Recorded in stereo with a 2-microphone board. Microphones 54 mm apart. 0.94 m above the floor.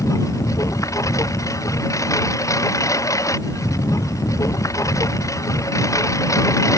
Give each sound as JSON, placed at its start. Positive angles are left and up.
{"t": 0.0, "sound": "a lawn mower", "side_deg": 80}